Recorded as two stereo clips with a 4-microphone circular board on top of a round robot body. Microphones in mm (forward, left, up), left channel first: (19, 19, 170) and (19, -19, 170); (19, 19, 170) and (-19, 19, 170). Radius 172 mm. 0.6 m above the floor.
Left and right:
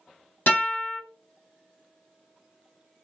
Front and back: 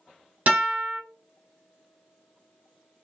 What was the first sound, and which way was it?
A guitar, 130° left.